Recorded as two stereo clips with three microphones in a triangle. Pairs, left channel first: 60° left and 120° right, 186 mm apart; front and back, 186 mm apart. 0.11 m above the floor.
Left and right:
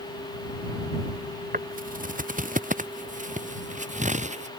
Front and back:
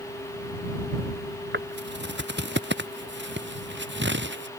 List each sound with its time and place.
1.5 s footsteps: 160° right; by 4.5 s 170° right